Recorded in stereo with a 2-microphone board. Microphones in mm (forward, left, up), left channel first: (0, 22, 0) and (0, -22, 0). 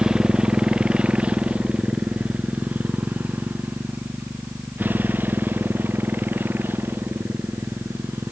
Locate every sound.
0.0 s a motorcycle: 15° right (ahead or behind); by 8.3 s 50° right (ahead or behind)